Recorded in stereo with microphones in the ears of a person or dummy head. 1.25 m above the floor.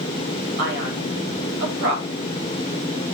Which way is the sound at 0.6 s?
65° right (ahead or behind).